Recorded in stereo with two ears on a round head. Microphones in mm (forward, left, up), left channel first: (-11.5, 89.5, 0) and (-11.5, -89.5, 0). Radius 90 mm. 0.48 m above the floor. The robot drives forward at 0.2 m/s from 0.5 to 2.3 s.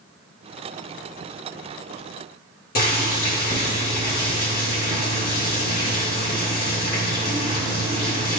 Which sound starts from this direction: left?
Boiling, at 2.8 s.